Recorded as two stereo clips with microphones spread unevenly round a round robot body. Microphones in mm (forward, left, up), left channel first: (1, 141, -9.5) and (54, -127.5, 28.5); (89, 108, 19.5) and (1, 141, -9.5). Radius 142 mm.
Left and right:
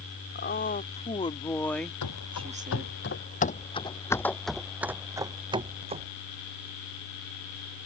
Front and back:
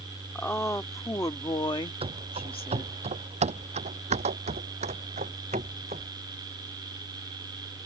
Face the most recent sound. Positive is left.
turn(degrees=-145)